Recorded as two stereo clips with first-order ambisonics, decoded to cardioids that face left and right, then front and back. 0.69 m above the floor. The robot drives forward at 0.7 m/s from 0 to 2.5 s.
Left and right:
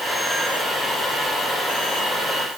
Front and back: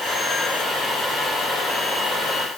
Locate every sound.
Only background noise.